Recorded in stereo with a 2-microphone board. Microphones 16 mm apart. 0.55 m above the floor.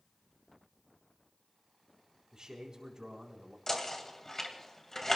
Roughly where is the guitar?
No guitar in this recording.